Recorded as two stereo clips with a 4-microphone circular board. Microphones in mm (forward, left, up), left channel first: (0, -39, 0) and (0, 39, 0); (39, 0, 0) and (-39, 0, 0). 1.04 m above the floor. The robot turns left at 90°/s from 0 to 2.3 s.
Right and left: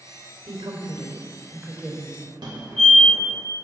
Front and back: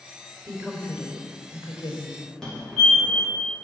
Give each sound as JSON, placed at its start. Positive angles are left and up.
{"t": 0.5, "sound": "a woman speaking", "azimuth_deg": 140, "distance_m": 3.5}
{"t": 2.4, "sound": "a fire alarm", "azimuth_deg": 80, "distance_m": 4.0}